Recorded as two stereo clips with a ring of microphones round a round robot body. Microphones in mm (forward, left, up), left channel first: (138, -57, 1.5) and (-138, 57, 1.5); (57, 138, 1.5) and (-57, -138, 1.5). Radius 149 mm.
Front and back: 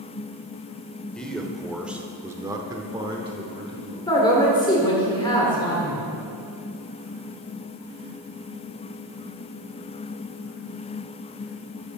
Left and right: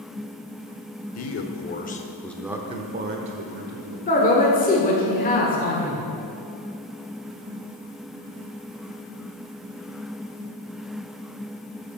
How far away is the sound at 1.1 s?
About 1.1 m.